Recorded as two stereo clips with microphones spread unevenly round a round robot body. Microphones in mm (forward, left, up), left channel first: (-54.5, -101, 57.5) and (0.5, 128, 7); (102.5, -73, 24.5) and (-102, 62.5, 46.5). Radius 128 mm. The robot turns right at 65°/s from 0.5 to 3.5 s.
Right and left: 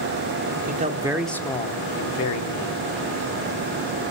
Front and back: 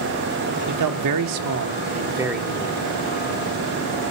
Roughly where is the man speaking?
Behind left.